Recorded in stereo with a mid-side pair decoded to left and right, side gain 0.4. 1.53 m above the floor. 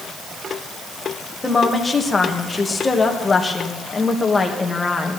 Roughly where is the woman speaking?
Ahead left.